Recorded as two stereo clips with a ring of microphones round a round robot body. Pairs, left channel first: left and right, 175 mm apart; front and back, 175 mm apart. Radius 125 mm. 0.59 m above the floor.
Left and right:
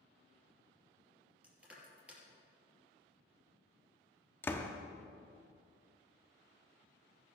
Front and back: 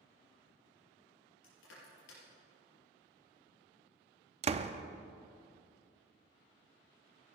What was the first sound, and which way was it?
Crushing, 5° right.